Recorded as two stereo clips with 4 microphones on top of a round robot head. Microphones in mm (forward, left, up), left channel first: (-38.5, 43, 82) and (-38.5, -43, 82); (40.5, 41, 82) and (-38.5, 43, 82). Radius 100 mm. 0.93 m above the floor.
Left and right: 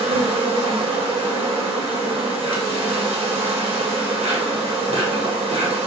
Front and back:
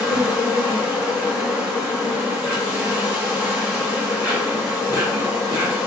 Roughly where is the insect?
Ahead right.